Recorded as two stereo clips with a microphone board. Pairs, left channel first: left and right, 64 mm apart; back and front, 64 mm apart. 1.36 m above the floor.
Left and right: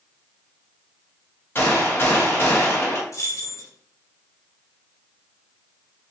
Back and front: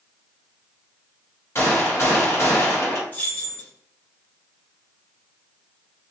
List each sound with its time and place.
1.6 s a gunshot: 140° left, 1.1 m
3.1 s keys jangling: 120° left, 0.8 m